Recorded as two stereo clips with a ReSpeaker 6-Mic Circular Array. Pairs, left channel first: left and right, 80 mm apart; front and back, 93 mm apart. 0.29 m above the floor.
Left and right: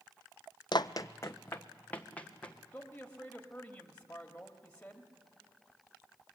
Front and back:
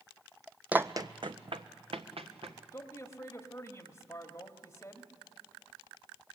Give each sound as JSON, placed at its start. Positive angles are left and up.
{"t": 0.7, "sound": "running footsteps", "azimuth_deg": 105, "distance_m": 0.6}
{"t": 2.7, "sound": "a man speaking", "azimuth_deg": 30, "distance_m": 1.5}